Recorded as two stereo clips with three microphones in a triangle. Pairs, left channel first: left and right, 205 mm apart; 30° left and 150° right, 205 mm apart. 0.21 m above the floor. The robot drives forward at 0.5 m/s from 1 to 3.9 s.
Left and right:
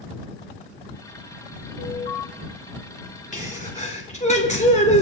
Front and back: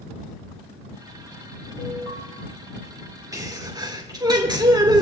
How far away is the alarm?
About 4.5 m.